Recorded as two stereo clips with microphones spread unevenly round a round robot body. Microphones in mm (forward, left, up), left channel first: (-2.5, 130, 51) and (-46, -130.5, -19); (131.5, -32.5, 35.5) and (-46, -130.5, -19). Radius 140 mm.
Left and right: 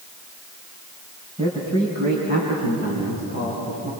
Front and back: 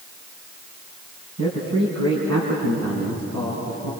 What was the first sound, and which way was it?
A man speaking, 170° right.